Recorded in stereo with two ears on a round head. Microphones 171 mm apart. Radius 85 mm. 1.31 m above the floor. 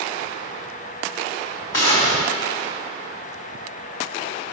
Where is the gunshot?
75° left (ahead or behind), 4.5 m.